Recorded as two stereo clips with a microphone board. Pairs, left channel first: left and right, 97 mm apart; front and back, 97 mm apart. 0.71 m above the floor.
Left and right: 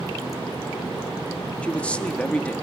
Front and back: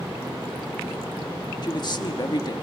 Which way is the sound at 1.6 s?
15° left.